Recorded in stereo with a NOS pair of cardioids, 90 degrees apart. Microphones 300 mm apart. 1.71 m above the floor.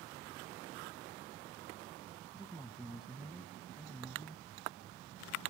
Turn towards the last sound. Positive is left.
turn(degrees=0)